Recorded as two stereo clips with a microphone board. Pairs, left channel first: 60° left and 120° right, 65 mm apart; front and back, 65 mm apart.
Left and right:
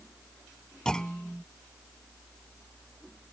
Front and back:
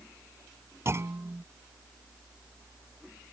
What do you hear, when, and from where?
0.8 s a clunk: 135° left